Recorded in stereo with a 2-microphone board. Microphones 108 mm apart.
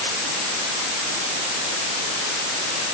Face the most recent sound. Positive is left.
No sound to turn to.